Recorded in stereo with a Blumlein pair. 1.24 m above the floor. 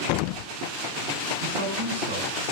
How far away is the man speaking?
About 8.5 m.